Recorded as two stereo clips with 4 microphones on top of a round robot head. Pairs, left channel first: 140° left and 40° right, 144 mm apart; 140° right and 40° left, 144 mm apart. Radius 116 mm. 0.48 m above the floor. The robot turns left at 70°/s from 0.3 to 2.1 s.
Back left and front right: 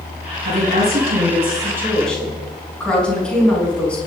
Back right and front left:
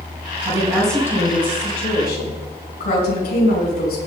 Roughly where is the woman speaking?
Ahead.